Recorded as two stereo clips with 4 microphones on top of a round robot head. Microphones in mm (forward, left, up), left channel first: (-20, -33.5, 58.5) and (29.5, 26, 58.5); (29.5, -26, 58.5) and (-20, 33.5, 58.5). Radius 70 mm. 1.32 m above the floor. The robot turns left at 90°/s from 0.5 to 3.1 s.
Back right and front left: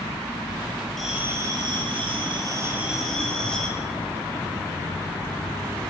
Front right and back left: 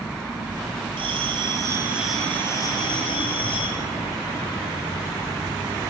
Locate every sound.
1.0 s a bell: 145° left, 7 m; by 3.7 s 50° right, 7 m